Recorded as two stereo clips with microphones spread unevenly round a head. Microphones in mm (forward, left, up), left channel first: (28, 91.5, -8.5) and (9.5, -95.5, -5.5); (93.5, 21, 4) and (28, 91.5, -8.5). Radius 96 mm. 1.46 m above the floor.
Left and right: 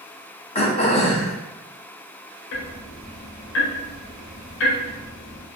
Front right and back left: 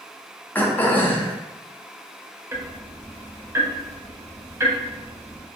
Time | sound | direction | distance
0.6 | throat clearing | 30° left | 0.6 m
2.5 | ticking | 75° left | 0.5 m